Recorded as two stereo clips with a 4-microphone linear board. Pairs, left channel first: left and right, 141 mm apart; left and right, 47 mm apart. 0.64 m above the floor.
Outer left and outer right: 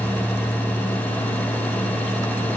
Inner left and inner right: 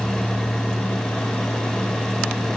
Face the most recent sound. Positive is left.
No sound to turn to.